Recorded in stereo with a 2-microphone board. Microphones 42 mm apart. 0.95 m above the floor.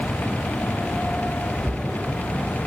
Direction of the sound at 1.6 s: 30° right (ahead or behind).